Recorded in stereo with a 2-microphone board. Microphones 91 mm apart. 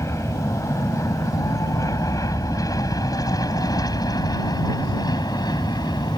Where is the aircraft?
35° left (ahead or behind); by 6.2 s 50° left (ahead or behind).